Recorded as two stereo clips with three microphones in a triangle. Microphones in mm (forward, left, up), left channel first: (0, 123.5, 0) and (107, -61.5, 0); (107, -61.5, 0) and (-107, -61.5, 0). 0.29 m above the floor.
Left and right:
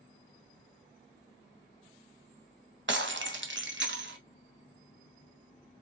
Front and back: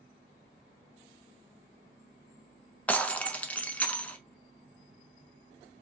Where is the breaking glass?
85° right, 0.6 m.